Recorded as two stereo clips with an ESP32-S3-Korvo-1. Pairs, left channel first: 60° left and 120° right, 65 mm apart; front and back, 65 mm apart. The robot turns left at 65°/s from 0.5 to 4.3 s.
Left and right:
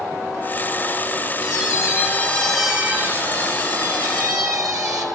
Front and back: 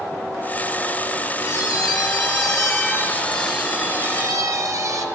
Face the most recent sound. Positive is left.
turn(degrees=-145)